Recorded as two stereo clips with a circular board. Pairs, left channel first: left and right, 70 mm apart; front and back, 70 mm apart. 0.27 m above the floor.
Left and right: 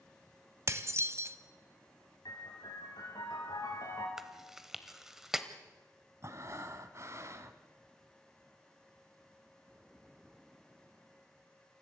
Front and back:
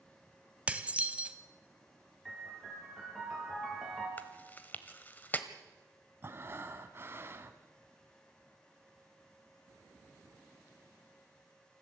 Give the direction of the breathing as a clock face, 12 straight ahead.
4 o'clock.